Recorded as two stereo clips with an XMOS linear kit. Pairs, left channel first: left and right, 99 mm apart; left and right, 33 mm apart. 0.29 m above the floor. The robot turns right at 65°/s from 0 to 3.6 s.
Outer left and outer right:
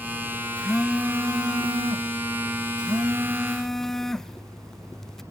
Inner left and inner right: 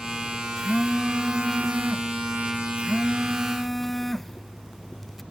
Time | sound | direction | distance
0.6 | a phone buzzing | 165° left | 0.6 m